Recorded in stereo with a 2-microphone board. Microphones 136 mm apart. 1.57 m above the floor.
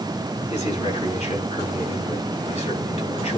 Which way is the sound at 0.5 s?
60° left (ahead or behind).